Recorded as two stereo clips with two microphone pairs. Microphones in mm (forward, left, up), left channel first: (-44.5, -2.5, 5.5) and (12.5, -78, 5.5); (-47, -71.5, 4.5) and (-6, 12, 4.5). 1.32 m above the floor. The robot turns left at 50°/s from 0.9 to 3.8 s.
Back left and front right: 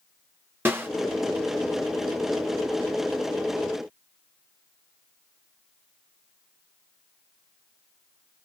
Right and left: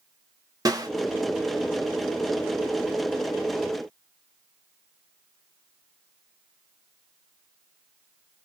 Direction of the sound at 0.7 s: 15° left.